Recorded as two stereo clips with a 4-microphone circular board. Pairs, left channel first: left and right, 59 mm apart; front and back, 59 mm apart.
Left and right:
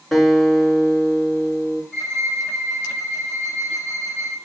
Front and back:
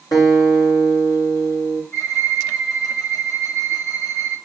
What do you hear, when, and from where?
0.1 s a guitar: 5° left, 6.5 m
1.9 s a violin: 15° left, 6 m